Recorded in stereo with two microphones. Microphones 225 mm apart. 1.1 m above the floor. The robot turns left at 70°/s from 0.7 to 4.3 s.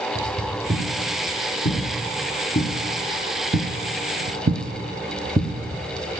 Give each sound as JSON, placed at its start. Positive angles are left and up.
{"t": 0.1, "sound": "footsteps", "side_deg": -15, "distance_m": 6.0}